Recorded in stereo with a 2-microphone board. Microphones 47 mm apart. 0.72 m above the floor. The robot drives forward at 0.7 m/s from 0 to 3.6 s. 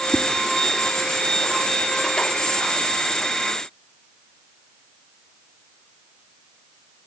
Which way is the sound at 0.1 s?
5° right (ahead or behind).